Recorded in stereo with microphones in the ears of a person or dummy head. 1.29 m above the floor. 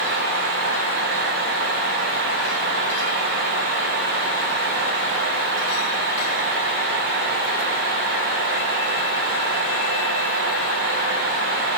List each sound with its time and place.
Only background noise.